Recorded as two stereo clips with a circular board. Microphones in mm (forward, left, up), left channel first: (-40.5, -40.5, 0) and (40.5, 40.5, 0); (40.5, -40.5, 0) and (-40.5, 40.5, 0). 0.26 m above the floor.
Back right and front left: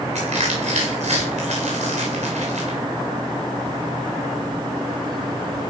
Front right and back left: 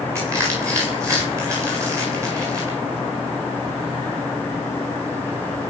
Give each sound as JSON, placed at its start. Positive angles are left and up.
{"t": 0.1, "sound": "crushing", "azimuth_deg": 70, "distance_m": 8.5}